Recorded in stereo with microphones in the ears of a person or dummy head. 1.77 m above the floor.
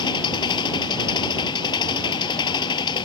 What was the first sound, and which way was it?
An engine running, 25° left (ahead or behind).